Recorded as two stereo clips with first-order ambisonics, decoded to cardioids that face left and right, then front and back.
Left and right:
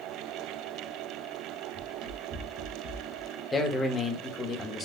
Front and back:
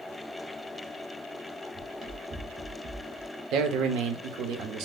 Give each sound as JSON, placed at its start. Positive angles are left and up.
{"t": 1.7, "sound": "running footsteps", "azimuth_deg": -125, "distance_m": 3.0}
{"t": 3.5, "sound": "a man speaking", "azimuth_deg": 160, "distance_m": 1.0}